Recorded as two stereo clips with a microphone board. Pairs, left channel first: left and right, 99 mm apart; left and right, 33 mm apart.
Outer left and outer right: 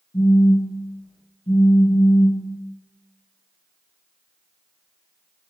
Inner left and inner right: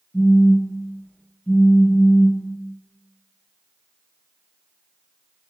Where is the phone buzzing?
65° left (ahead or behind), 1.0 m.